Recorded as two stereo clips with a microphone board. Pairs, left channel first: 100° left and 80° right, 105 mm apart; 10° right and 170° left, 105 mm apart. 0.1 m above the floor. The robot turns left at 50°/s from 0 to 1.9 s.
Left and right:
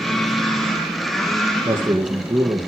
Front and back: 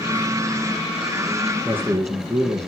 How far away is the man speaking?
About 2.5 m.